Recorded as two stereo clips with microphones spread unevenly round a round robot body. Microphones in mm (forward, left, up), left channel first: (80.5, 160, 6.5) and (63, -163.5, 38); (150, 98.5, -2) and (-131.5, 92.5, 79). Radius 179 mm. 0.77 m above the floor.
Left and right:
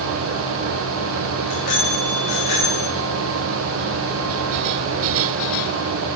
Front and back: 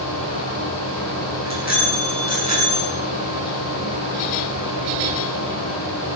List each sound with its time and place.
1.4 s a bicycle bell: 60° left, 7 m; by 2.9 s 65° left, 7 m